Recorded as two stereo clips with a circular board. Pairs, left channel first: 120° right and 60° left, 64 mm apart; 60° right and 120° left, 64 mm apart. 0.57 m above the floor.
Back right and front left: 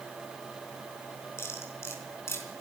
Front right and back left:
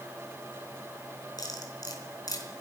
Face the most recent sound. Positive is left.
turn(degrees=-75)